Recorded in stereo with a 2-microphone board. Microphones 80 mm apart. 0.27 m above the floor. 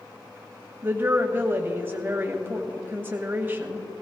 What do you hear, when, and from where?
0.8 s a woman speaking: 25° right (ahead or behind), 1.4 m